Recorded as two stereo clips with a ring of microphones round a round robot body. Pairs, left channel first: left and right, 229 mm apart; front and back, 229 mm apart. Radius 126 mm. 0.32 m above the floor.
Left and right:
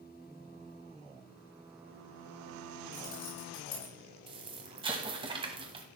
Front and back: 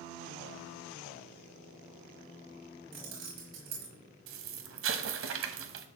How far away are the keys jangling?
About 5 m.